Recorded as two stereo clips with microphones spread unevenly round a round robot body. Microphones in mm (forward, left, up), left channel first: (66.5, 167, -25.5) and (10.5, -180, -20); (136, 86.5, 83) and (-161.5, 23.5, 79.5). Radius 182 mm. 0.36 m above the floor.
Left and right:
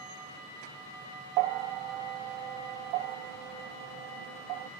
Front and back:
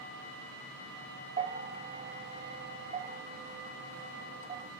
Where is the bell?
105° right, 0.5 m.